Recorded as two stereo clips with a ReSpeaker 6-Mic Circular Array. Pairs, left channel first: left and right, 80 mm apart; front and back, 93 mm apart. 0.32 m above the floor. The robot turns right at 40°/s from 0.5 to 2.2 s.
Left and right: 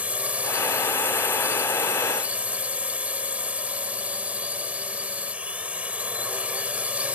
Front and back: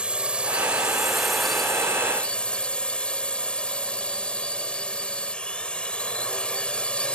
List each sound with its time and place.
0.0 s a drone: 125° right; by 7.2 s 55° right